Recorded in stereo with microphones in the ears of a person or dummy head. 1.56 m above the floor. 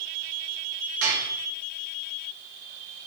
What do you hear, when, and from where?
1.0 s dishes clattering: 65° right (ahead or behind), 3.5 m